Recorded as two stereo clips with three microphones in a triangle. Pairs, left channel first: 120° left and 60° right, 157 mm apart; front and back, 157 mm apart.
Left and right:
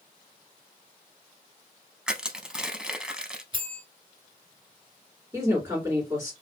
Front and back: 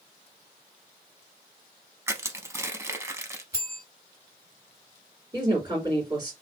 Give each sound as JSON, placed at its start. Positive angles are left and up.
{"t": 2.1, "sound": "crushing", "azimuth_deg": -140, "distance_m": 0.5}
{"t": 3.5, "sound": "a bell", "azimuth_deg": -115, "distance_m": 2.5}
{"t": 5.3, "sound": "a woman speaking", "azimuth_deg": -125, "distance_m": 2.5}